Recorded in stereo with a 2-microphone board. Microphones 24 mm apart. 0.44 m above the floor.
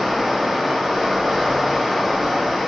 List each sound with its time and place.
0.0 s running water: 5° right (ahead or behind), 1.5 m